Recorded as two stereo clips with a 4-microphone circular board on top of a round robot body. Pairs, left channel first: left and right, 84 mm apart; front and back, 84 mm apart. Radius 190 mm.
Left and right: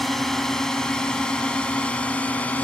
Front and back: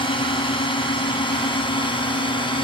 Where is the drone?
5° left; by 2.6 s 15° left.